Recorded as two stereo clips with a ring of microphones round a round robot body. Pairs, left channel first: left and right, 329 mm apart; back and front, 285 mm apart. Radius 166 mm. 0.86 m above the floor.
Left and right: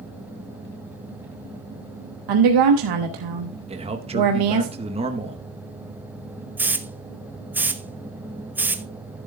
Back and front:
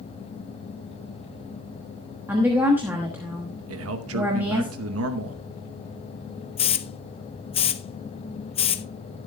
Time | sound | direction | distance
2.3 | a woman speaking | 85° right | 1.0 m
3.7 | a man speaking | 20° right | 0.9 m
6.6 | a hiss | 165° right | 0.6 m